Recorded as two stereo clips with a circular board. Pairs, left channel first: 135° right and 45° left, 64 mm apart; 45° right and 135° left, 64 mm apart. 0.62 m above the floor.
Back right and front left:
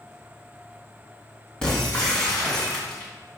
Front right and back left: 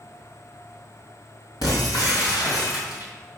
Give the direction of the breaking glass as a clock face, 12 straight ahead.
2 o'clock.